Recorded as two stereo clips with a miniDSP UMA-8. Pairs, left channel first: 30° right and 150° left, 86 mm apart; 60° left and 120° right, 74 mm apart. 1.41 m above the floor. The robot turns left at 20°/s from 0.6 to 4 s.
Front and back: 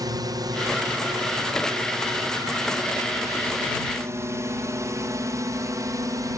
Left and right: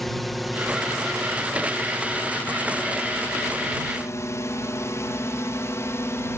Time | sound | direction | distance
0.0 | a drone | 150° left | ?